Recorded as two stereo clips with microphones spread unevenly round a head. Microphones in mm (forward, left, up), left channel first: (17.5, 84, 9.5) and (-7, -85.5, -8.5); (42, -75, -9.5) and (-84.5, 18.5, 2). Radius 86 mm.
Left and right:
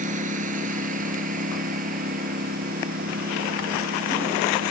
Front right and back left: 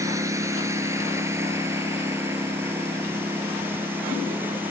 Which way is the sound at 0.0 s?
150° right.